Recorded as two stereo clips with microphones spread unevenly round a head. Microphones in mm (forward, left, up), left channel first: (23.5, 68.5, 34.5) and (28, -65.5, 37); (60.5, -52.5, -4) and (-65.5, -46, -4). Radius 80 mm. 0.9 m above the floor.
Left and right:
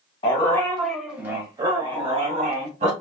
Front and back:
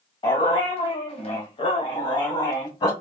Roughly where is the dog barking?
Ahead left.